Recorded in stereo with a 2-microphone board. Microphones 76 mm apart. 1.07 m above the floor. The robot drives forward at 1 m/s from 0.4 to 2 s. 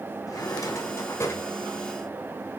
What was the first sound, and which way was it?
A drawer, 50° left (ahead or behind).